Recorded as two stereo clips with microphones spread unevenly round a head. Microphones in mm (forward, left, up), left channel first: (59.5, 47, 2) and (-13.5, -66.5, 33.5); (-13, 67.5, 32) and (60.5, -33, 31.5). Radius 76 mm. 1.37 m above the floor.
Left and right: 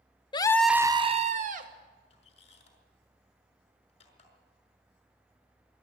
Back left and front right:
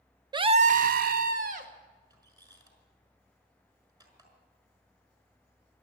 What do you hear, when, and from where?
0.3 s a scream: 5° left, 0.8 m; by 1.7 s 90° right, 1.6 m
2.1 s a squeak: 5° left, 5.5 m